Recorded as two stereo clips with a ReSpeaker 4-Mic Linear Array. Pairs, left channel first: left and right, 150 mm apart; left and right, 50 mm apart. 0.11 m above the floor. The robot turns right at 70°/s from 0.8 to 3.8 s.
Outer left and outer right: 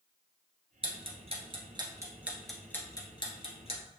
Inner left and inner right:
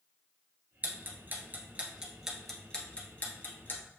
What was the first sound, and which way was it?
Ticking, 40° right (ahead or behind).